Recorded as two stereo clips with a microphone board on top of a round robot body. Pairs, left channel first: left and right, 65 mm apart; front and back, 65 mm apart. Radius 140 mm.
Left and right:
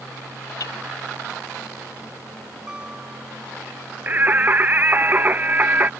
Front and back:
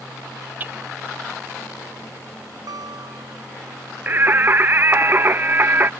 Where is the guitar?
165° right.